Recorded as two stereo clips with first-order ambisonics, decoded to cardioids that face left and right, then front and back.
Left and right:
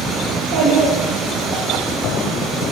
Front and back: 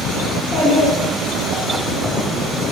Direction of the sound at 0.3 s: 90° right.